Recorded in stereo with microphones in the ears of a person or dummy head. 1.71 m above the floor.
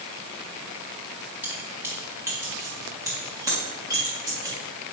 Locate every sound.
1.4 s keys jangling: 15° right (ahead or behind), 1.3 m; by 4.5 s 25° right (ahead or behind), 3 m